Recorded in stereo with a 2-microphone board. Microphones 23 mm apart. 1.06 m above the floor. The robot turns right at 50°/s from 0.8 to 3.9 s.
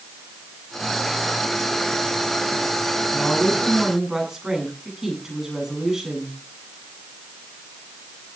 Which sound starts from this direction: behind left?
A woman speaking, at 3.1 s.